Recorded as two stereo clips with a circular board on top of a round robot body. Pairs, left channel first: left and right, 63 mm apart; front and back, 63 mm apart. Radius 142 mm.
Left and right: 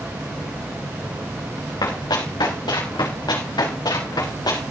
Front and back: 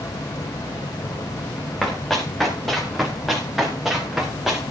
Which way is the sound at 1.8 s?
85° left.